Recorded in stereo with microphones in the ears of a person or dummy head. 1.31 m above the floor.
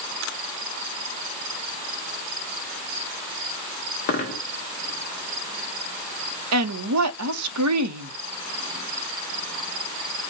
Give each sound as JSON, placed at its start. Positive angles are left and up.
{"t": 4.1, "sound": "a dropped coin", "side_deg": 45, "distance_m": 1.1}
{"t": 6.5, "sound": "a woman speaking", "side_deg": -85, "distance_m": 0.8}